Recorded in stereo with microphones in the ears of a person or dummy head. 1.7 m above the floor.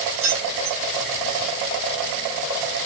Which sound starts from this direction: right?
Keys jangling, at 0.2 s.